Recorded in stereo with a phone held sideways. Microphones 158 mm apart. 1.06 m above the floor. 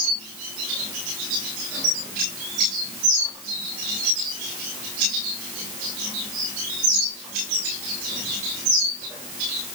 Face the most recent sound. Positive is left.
No sound to turn to.